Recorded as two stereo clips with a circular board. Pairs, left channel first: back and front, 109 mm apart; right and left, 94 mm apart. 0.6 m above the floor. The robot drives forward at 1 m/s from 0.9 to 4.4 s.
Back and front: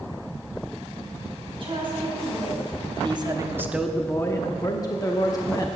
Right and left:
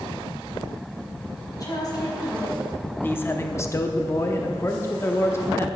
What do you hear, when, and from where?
1.6 s a woman speaking: 40° right, 4.5 m; by 2.6 s 50° right, 3.5 m
3.0 s a man speaking: 30° right, 1.2 m; by 5.7 s 140° right, 1.0 m